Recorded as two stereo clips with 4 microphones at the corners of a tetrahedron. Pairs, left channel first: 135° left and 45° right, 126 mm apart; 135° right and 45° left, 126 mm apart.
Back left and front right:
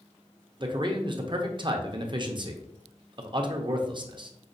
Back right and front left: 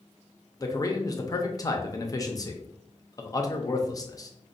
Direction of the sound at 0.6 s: 85° right.